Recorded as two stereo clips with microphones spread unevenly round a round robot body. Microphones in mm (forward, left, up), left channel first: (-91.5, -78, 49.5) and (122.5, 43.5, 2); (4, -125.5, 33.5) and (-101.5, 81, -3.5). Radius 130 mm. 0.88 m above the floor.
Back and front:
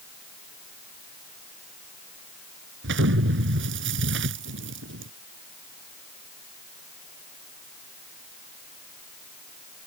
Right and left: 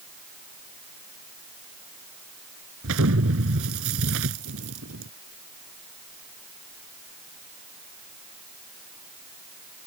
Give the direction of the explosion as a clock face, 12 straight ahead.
9 o'clock.